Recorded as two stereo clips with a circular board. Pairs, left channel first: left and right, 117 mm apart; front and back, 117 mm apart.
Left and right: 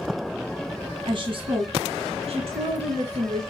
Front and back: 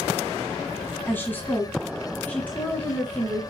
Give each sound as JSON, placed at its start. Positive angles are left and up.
{"t": 1.1, "sound": "a woman speaking", "azimuth_deg": -65, "distance_m": 1.9}